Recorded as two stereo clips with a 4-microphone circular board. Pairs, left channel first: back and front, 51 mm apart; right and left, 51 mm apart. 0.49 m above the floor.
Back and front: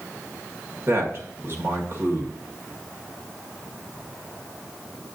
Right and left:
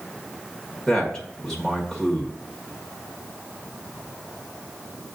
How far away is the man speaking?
About 1.5 m.